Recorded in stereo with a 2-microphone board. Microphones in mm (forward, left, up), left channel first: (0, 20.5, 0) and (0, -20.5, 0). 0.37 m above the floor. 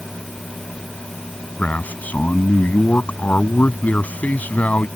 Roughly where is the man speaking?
Left.